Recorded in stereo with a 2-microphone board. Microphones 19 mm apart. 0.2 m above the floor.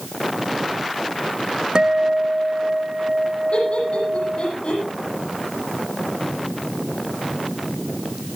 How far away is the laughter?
About 9.5 m.